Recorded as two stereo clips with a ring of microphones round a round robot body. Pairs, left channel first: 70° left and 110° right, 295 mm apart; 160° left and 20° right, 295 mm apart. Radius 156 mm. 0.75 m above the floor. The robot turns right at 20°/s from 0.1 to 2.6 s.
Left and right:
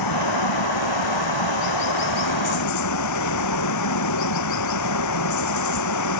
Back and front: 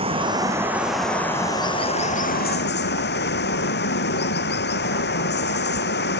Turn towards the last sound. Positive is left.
turn(degrees=100)